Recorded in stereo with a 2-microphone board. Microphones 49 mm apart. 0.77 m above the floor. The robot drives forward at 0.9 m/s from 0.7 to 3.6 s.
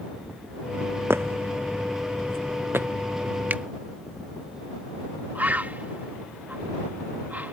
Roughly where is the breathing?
I don't hear breathing.